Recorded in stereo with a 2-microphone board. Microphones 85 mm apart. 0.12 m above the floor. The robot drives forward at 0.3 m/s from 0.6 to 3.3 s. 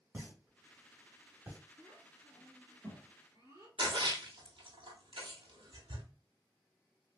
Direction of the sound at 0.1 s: 25° right (ahead or behind).